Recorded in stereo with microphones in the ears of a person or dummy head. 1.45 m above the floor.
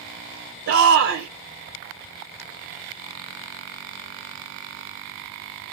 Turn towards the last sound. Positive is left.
turn(degrees=-65)  # may be behind; listen again after turning